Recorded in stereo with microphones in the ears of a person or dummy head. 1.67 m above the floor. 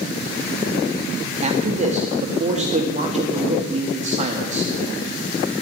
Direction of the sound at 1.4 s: 35° right (ahead or behind).